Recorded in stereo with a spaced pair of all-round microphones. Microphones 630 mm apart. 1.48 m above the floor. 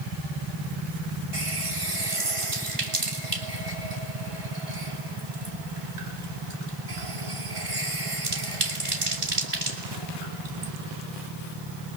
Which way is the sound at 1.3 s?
55° right (ahead or behind).